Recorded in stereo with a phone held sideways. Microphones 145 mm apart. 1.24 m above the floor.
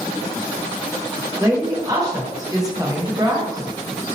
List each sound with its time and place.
1.4 s a woman speaking: 25° right (ahead or behind), 0.8 m